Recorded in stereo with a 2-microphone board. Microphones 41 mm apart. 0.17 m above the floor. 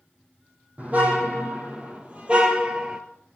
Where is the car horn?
40° right (ahead or behind), 3.5 m; by 3.0 s 20° right (ahead or behind), 1.6 m.